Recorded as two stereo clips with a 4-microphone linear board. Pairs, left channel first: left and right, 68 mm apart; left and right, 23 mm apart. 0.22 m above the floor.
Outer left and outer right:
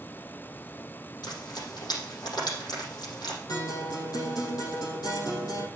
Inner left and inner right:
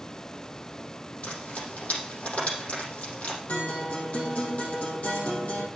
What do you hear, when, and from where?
1.2 s frying: 80° left, 5.5 m
3.5 s a guitar: 70° left (ahead or behind), 4.5 m